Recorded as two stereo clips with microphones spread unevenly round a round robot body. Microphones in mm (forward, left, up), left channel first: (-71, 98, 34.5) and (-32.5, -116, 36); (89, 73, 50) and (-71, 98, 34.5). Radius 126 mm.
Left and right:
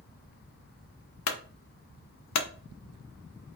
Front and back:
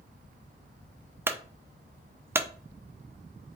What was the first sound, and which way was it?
A clunk, 95° left.